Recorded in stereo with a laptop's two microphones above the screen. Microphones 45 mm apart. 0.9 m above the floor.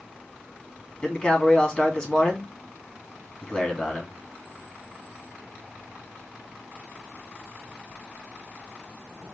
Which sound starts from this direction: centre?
A man speaking, at 1.0 s.